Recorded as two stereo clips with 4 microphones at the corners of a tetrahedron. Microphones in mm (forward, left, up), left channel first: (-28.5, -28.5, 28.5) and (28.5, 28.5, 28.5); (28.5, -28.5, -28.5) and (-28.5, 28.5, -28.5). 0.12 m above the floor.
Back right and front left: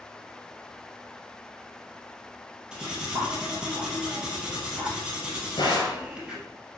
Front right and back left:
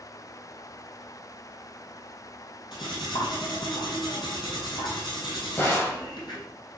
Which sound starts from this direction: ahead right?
Cutlery clinking, at 2.7 s.